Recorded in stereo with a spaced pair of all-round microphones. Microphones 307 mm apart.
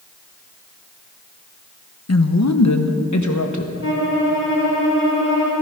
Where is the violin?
40° left (ahead or behind), 2.5 m.